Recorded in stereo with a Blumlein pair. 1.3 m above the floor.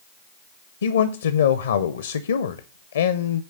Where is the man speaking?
65° left, 0.6 m.